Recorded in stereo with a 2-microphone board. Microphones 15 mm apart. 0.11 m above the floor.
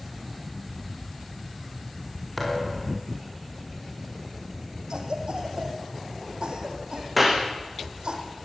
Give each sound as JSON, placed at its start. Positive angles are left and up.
{"t": 2.4, "sound": "a thud", "side_deg": 5, "distance_m": 9.5}
{"t": 4.9, "sound": "a cough", "side_deg": -75, "distance_m": 5.5}
{"t": 7.2, "sound": "a clap", "side_deg": 0, "distance_m": 5.5}